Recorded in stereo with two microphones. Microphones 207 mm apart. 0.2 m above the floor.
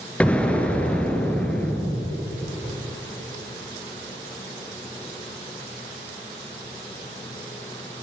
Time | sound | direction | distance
0.2 | an explosion | 5° left (ahead or behind) | 2.5 m